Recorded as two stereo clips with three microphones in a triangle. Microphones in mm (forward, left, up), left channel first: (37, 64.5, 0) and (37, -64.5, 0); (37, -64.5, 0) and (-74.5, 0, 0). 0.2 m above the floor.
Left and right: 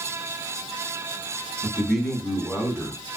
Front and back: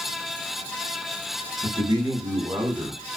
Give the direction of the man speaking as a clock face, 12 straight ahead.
6 o'clock.